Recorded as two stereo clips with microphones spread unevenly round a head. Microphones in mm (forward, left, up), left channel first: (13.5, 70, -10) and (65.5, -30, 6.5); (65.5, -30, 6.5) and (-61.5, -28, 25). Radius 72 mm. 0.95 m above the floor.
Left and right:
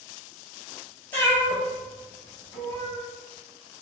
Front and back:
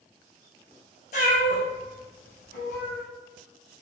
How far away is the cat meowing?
About 2 m.